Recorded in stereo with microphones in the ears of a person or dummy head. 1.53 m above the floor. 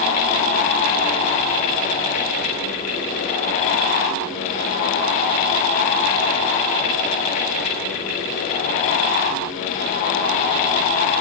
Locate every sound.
Only background noise.